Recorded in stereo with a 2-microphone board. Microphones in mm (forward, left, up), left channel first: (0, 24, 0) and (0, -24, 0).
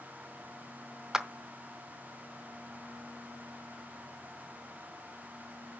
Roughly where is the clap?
Centre.